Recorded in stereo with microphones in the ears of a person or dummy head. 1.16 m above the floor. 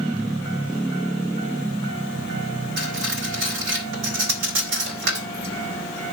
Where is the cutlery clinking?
70° right (ahead or behind), 2.5 m.